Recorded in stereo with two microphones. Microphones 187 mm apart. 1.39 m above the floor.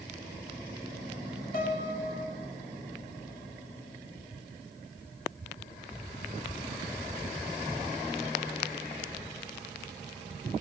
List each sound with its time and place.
1.5 s a piano: 50° left (ahead or behind), 2.5 m